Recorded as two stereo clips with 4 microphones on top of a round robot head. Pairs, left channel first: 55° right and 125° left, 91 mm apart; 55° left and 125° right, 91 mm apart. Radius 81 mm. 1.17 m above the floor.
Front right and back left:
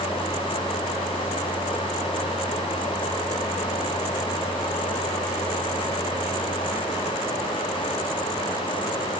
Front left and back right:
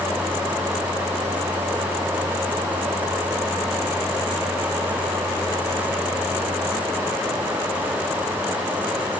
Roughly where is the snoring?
I don't hear snoring.